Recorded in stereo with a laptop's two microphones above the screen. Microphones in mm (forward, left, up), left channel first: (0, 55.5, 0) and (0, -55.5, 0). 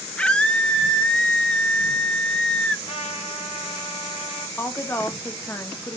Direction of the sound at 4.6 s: 20° left (ahead or behind).